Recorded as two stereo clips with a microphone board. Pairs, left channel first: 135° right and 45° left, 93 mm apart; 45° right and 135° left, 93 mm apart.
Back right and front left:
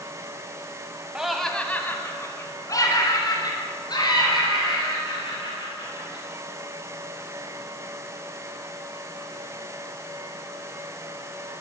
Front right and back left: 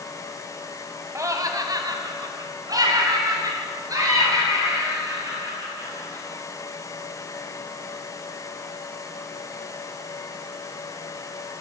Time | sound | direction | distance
1.1 | laughter | 120° left | 1.1 m